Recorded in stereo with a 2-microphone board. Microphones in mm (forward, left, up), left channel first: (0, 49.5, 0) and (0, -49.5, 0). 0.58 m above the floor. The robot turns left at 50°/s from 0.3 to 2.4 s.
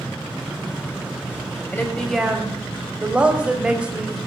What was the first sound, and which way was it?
A woman speaking, 25° left.